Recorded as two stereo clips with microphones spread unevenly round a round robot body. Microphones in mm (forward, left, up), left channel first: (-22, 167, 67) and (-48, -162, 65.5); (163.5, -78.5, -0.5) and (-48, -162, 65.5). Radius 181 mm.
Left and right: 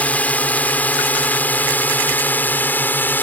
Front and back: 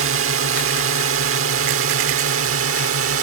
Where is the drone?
170° left.